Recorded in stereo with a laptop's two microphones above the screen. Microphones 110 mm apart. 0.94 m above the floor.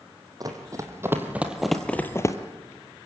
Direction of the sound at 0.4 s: 35° right (ahead or behind).